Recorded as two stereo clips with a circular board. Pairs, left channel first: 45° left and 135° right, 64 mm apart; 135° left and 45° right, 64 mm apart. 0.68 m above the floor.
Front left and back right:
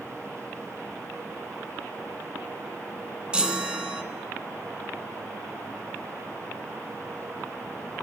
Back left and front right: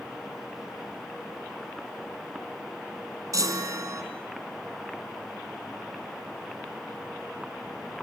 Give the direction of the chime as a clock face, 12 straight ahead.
2 o'clock.